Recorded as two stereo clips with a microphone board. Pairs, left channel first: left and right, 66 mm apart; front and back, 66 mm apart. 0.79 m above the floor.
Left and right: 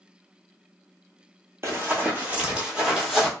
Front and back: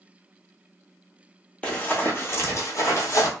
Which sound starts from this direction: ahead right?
Running footsteps, at 1.6 s.